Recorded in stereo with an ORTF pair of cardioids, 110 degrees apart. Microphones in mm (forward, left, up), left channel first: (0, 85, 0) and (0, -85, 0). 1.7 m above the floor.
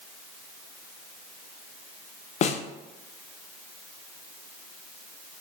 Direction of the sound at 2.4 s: 40° left.